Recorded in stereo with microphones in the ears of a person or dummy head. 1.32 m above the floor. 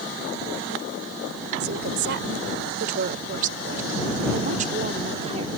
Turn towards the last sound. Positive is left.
turn(degrees=-35)  # may be behind; listen again after turning